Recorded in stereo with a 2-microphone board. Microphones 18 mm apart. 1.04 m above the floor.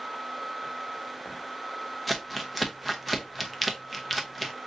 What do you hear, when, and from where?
2.1 s crumpling: 5° right (ahead or behind), 0.9 m